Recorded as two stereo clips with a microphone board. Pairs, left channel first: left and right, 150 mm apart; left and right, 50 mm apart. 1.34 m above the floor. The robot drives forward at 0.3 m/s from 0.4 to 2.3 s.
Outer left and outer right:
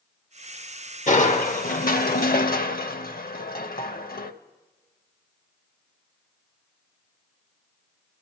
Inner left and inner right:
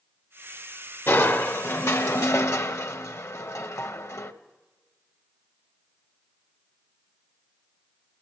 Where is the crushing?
50° left (ahead or behind), 1.0 m; by 4.3 s 70° left (ahead or behind), 0.8 m.